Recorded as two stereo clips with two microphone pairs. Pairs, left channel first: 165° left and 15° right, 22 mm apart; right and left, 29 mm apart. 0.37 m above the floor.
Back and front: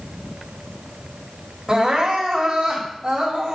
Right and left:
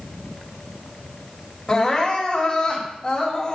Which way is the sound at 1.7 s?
55° right.